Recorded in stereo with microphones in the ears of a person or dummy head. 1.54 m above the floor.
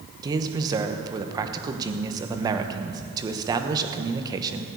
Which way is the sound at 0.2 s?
25° right (ahead or behind).